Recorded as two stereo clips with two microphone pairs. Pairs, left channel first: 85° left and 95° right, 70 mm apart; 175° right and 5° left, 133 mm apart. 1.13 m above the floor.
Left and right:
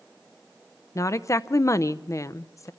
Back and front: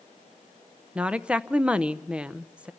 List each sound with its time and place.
0.9 s a woman speaking: 85° left, 0.6 m